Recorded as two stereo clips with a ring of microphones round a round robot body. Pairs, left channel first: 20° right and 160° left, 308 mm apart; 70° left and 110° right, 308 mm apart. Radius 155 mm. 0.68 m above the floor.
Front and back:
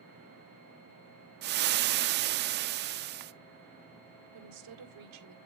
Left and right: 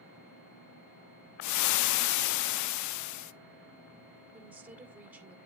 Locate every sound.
1.4 s frying: 100° left, 0.5 m
4.3 s a woman speaking: 165° left, 1.8 m